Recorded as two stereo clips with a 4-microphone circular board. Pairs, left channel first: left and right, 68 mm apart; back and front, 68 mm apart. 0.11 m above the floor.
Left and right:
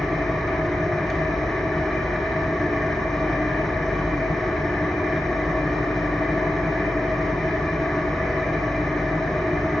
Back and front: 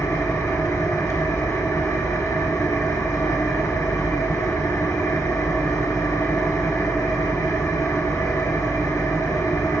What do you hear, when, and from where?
0.0 s an engine running: 170° left, 1.5 m